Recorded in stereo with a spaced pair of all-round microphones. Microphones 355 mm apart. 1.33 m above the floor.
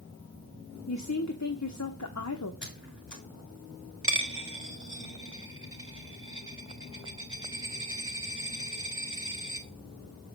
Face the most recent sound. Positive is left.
turn(degrees=-35)  # may be behind; listen again after turning